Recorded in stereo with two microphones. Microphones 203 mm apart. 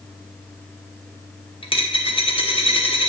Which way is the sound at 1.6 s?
25° left (ahead or behind).